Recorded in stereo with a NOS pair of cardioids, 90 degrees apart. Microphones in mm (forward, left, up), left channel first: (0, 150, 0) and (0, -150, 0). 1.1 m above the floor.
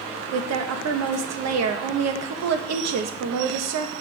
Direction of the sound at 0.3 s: 65° right.